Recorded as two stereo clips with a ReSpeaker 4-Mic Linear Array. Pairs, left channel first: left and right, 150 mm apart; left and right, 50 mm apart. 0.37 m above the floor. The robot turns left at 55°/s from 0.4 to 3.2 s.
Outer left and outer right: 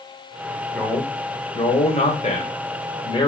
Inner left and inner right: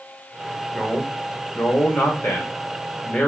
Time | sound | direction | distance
0.7 | a man speaking | 175° left | 1.4 m